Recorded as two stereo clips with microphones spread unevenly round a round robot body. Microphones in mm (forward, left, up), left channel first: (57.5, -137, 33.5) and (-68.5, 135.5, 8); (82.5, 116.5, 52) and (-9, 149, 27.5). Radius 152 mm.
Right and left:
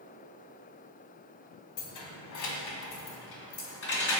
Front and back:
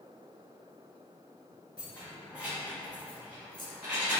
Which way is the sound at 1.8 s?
90° right.